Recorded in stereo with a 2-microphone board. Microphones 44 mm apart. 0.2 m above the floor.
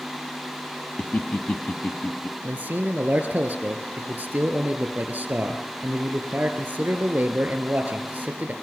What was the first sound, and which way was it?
Laughter, 30° left (ahead or behind).